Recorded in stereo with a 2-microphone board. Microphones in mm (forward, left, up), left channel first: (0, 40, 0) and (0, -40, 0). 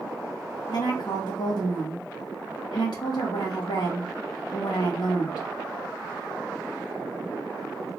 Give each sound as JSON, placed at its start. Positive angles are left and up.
{"t": 0.7, "sound": "a woman speaking", "side_deg": 60, "distance_m": 1.4}